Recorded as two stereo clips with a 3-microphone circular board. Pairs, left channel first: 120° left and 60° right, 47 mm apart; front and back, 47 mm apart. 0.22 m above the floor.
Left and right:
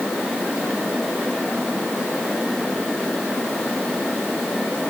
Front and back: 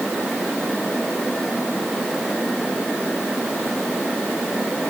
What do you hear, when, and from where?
Only background noise.